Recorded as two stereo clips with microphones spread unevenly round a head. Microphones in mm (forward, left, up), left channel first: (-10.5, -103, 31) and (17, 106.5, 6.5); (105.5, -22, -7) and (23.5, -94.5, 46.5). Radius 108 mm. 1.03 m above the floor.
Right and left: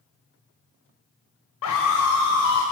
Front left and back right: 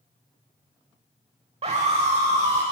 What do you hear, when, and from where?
1.6 s a scream: 110° right, 4 m; by 2.6 s 120° right, 3 m